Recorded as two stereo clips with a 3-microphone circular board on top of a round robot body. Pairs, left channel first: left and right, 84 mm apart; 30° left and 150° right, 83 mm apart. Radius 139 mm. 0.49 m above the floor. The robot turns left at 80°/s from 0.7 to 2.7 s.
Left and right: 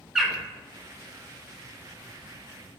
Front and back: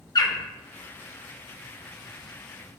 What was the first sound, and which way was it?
A bird, 5° right.